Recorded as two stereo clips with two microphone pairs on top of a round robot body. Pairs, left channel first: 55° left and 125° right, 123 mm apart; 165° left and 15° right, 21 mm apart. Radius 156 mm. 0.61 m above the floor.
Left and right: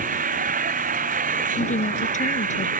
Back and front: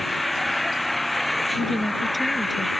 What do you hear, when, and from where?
0.0 s an engine running: 115° right
1.6 s a woman speaking: 70° left